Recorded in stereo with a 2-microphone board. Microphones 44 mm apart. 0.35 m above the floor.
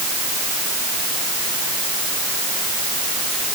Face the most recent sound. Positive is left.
No sound to turn to.